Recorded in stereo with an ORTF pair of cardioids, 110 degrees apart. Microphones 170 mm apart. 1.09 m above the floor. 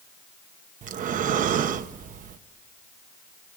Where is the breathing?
50° right, 1.0 m.